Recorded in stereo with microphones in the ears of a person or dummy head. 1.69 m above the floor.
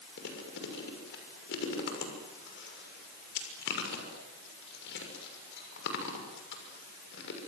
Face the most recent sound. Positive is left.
turn(degrees=60)  # may be behind; listen again after turning